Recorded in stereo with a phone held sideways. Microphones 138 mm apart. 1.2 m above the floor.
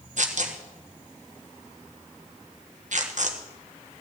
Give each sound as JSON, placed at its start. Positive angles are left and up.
{"t": 0.2, "sound": "tearing paper", "side_deg": -60, "distance_m": 1.3}